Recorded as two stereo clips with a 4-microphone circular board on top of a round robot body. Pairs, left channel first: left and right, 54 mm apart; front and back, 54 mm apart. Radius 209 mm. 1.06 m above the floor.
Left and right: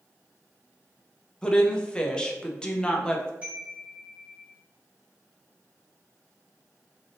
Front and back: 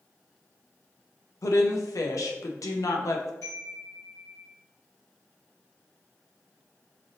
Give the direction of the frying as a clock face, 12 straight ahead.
No frying in this recording.